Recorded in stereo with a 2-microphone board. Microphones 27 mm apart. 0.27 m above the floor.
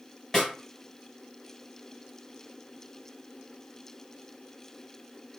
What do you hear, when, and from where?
0.3 s a snare drum: 5° left (ahead or behind), 2 m